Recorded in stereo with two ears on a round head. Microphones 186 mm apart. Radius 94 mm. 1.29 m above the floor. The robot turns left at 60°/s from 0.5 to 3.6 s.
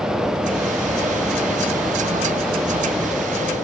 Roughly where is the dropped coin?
I don't hear a dropped coin.